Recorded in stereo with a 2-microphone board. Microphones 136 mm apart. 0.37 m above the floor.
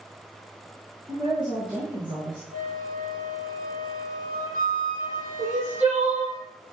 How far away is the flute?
About 4 m.